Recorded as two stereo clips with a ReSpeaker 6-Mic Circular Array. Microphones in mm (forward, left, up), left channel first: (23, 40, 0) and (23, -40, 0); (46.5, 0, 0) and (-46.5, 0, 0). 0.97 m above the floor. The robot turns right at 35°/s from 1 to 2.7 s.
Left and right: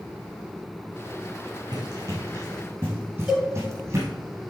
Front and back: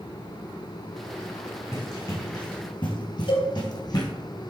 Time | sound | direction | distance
1.7 | running footsteps | 55° right | 3.5 m
3.3 | a cowbell | 5° right | 4 m